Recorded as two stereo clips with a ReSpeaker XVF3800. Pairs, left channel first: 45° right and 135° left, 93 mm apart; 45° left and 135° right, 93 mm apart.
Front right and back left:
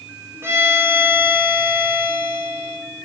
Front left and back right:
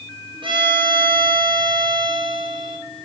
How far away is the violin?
About 0.7 m.